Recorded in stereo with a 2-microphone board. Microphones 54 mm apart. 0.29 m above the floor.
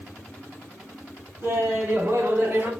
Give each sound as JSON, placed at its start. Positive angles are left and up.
{"t": 1.4, "sound": "laughter", "side_deg": -60, "distance_m": 3.5}